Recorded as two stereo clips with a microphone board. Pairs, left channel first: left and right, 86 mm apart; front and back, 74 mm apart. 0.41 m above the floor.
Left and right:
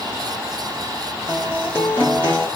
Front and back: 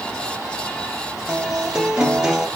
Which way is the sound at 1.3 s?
115° left.